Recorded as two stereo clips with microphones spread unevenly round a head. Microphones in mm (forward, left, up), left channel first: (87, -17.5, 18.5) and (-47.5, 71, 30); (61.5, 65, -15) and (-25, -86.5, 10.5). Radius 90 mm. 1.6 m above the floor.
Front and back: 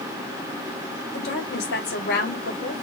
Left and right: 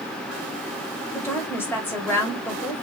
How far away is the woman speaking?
About 3 m.